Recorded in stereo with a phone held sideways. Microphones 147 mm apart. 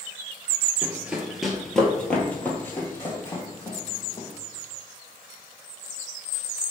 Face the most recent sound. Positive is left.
turn(degrees=25)  # may be behind; listen again after turning